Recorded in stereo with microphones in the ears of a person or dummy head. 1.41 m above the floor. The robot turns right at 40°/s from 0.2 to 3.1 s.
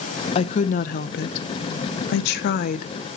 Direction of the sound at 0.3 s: 30° left.